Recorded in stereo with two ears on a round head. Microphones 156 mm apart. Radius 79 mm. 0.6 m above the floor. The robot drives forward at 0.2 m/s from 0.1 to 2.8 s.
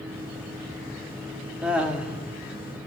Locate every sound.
1.6 s laughter: 5° right (ahead or behind), 1.0 m